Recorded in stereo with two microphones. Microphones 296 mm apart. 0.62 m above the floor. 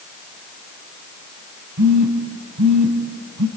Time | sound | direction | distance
1.8 | a phone buzzing | 75° right (ahead or behind) | 2.0 m